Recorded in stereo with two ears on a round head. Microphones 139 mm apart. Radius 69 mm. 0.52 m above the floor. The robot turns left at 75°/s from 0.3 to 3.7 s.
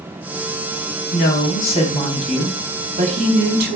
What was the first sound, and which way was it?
A woman speaking, 90° left.